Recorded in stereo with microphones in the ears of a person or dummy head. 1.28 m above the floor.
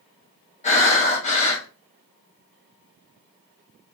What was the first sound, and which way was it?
Breathing, 35° left (ahead or behind).